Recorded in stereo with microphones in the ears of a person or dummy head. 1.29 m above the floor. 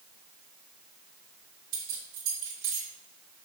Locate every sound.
1.7 s keys jangling: 75° right (ahead or behind), 2 m